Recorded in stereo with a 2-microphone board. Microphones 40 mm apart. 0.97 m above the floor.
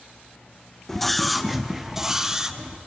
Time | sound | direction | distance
0.9 | a scream | 10° left (ahead or behind) | 0.8 m